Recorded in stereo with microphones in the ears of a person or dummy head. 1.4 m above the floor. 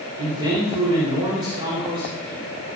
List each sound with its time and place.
0.2 s a man speaking: 20° right (ahead or behind), 4 m